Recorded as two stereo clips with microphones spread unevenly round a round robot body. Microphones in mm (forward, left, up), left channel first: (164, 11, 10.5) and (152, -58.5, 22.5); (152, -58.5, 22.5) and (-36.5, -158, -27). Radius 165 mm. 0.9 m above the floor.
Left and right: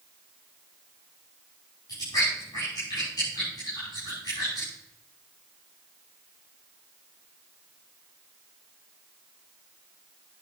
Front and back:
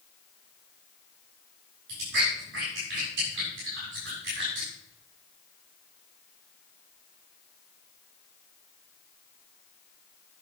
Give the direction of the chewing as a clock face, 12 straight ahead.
7 o'clock.